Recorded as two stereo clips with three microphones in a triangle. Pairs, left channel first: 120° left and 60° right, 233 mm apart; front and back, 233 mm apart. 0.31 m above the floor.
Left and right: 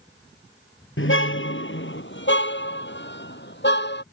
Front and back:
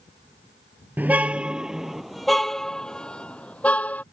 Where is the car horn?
100° left; by 4.0 s 85° left.